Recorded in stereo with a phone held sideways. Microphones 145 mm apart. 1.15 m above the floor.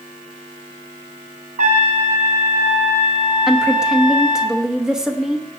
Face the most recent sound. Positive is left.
turn(degrees=-5)  # may be behind; listen again after turning